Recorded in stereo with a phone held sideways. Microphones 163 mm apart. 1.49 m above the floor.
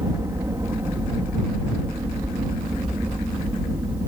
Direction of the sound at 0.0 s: 20° right (ahead or behind).